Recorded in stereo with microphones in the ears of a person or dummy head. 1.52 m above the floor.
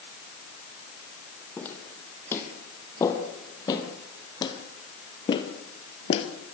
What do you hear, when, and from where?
1.6 s footsteps: 10° left (ahead or behind), 3.5 m; by 6.3 s 35° left (ahead or behind), 2.0 m